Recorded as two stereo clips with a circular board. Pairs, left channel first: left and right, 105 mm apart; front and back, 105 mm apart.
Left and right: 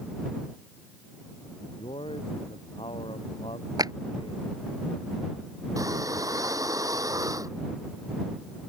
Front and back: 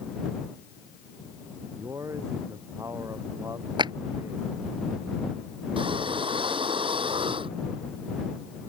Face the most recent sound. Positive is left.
turn(degrees=-145)